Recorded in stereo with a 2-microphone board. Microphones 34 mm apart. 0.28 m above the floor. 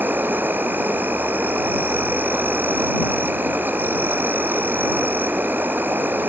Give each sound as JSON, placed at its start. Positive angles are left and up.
{"t": 0.0, "sound": "an insect", "side_deg": -85}